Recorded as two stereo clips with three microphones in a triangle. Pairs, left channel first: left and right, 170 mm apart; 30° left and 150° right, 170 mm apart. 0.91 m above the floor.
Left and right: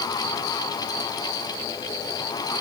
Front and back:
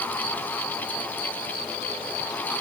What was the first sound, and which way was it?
Only background noise.